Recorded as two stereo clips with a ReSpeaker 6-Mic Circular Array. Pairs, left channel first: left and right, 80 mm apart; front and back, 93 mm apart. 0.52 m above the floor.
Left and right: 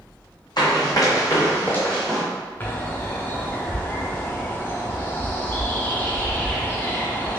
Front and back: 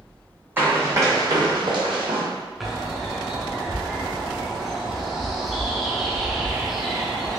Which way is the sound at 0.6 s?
110° left.